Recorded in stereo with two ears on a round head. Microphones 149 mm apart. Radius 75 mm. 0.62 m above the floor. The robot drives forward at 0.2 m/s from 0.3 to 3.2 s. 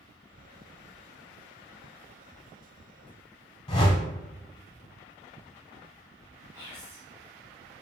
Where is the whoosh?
30° left (ahead or behind), 0.7 m.